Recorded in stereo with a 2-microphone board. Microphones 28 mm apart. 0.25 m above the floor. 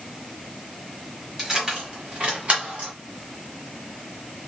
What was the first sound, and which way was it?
Keys jangling, 20° right (ahead or behind).